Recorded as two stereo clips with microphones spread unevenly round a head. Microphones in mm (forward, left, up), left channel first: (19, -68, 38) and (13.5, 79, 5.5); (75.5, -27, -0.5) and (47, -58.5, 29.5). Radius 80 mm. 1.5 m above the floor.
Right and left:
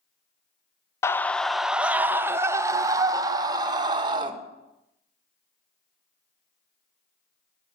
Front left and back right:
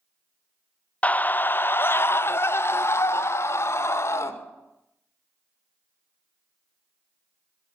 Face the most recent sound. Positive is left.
turn(degrees=30)